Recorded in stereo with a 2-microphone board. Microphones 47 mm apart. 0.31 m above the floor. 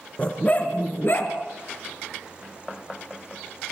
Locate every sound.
0.2 s a dog barking: 25° left (ahead or behind), 2 m; by 1.3 s 50° left (ahead or behind), 2.5 m